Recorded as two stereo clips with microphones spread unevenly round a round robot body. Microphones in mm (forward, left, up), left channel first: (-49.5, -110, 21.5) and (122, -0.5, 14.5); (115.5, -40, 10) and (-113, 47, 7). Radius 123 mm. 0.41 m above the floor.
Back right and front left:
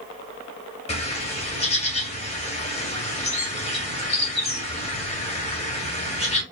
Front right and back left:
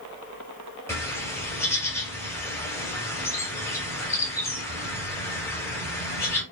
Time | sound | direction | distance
0.9 | a bird | 100° right | 1.5 m